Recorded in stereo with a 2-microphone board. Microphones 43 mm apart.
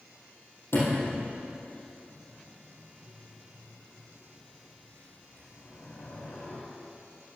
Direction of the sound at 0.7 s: 85° left.